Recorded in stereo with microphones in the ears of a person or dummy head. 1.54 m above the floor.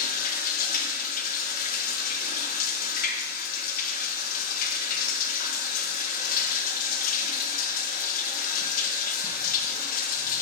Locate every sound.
0.0 s running water: 50° left (ahead or behind), 1.1 m